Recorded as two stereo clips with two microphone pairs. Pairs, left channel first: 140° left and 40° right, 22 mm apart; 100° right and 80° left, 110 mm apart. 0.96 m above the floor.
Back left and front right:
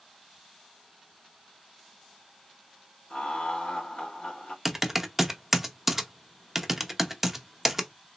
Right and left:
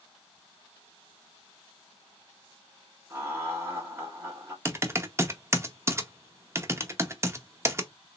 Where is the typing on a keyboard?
30° left, 0.6 m.